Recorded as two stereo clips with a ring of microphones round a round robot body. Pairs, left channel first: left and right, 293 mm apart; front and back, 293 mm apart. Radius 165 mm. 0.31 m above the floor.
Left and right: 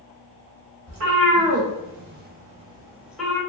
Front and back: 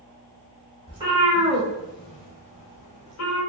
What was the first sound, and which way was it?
A cat meowing, 110° right.